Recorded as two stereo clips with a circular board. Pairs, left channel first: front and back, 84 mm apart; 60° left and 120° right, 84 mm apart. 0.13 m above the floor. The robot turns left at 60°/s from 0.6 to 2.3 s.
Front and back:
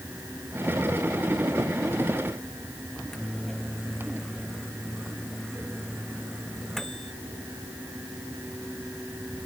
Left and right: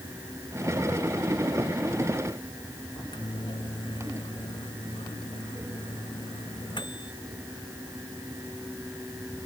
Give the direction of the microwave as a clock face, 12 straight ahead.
9 o'clock.